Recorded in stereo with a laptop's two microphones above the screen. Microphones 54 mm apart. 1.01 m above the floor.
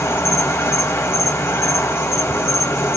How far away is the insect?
About 1.3 m.